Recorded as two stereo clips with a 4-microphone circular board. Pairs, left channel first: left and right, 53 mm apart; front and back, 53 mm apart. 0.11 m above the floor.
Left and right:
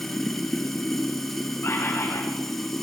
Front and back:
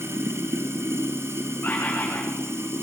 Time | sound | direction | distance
0.0 | running water | 175° left | 2 m
1.6 | a bird | 60° left | 7.5 m